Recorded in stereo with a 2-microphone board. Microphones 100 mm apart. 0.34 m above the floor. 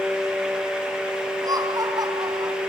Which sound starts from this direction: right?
Laughter, at 1.4 s.